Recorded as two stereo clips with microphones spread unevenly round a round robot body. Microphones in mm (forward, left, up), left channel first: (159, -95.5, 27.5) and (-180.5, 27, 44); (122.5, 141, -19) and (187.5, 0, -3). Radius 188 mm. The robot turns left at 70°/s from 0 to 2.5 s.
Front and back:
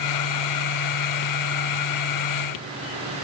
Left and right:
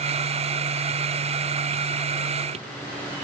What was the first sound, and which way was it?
Only background noise.